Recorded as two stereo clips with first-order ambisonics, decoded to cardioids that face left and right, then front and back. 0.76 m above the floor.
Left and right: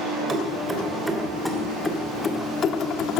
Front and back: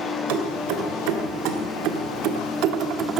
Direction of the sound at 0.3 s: 165° right.